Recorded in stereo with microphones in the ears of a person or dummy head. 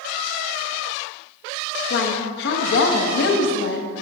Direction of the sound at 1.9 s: 65° left (ahead or behind).